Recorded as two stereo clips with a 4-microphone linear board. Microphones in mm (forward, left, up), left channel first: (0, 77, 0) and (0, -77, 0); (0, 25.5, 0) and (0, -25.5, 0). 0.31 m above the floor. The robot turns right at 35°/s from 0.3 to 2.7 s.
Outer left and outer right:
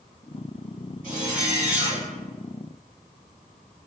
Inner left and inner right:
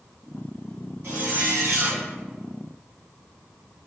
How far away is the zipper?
About 1.4 m.